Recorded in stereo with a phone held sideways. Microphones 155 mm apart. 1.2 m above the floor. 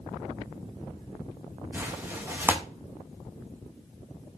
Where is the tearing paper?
15° right (ahead or behind), 0.6 m.